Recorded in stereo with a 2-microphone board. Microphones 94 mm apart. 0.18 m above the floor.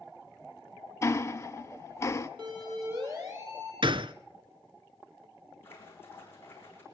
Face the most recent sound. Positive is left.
turn(degrees=25)  # may be behind; listen again after turning